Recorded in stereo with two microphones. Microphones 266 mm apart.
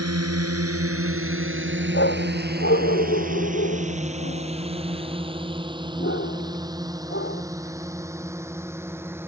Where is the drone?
70° right (ahead or behind); by 9.3 s 10° right (ahead or behind).